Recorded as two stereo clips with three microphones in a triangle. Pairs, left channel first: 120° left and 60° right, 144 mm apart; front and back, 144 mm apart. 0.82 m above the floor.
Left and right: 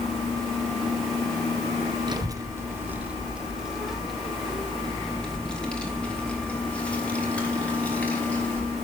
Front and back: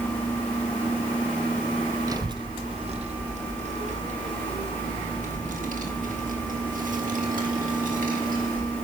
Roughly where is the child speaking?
Behind right.